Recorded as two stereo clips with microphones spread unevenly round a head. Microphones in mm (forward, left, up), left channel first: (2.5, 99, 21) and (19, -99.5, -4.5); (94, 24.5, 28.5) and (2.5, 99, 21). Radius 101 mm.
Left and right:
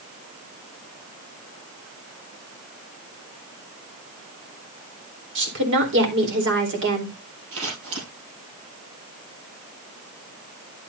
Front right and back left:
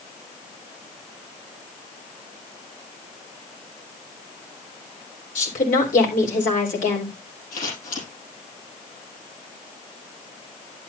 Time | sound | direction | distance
5.3 | a woman speaking | 60° right | 4 m
7.5 | scissors | 60° right | 6.5 m